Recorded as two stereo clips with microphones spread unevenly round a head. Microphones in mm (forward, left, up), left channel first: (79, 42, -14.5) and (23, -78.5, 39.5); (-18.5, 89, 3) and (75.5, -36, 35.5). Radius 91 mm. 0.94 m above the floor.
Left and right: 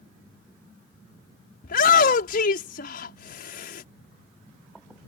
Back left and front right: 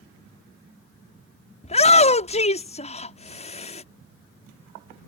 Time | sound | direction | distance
1.6 | a shout | 80° left | ?